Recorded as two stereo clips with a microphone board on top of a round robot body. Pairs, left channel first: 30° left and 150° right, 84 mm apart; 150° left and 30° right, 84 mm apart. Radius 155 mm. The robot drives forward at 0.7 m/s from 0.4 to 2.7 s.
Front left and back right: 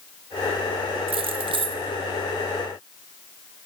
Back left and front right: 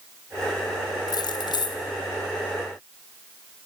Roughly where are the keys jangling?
Behind.